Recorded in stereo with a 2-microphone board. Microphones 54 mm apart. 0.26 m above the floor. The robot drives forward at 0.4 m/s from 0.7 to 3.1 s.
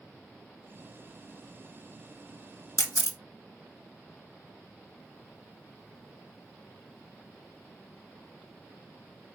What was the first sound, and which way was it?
A camera shutter, 75° left (ahead or behind).